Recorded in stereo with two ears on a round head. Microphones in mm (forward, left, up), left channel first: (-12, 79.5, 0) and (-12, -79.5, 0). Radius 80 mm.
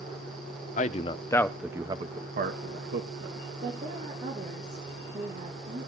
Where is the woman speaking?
45° right (ahead or behind), 3 m.